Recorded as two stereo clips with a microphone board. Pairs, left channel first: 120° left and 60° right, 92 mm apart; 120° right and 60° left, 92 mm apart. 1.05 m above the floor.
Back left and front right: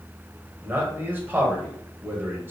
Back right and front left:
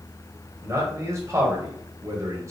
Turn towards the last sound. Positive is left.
turn(degrees=5)